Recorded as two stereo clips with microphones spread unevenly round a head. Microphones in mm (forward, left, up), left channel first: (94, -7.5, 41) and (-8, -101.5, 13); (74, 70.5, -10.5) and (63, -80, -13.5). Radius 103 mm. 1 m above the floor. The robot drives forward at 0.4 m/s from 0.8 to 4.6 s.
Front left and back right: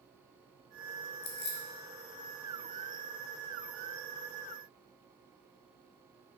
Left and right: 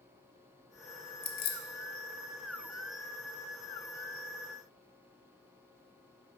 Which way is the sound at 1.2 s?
60° left.